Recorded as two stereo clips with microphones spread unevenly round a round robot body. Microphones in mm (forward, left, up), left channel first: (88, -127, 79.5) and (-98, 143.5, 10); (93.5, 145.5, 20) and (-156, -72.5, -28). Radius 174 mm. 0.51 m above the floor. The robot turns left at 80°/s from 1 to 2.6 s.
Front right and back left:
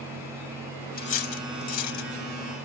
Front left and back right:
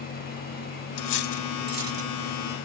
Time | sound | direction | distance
1.0 | cutlery clinking | 10° left | ?